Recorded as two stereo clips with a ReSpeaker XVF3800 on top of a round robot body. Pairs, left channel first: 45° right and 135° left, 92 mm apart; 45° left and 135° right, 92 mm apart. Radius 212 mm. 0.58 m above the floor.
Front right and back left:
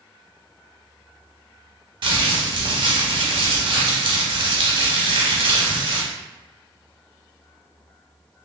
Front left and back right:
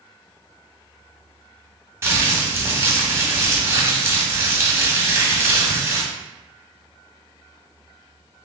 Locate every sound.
2.0 s crumpling: 165° left, 0.9 m